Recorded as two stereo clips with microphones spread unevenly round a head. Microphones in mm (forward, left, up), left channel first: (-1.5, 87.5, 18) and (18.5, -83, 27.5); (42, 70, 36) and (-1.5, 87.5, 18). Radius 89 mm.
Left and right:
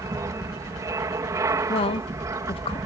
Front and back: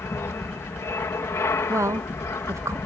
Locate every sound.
0.0 s an aircraft: 15° right
1.7 s a woman speaking: 155° left